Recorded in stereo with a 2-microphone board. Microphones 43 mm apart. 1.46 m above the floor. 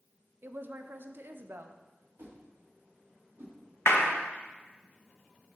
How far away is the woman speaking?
About 0.6 m.